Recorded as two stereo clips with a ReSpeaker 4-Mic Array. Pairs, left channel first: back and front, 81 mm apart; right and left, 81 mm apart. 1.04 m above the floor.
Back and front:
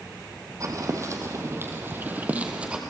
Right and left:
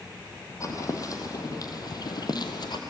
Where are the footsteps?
45° right, 2.5 m; by 2.8 s 80° right, 2 m.